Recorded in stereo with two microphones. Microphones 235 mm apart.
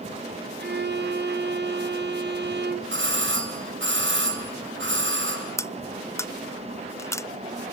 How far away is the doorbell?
About 3 m.